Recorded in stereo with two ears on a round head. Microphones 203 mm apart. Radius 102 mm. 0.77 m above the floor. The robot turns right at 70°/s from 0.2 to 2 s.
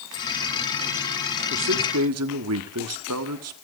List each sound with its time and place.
1.5 s a man speaking: 125° right, 1.6 m; by 3.5 s 90° right, 1.6 m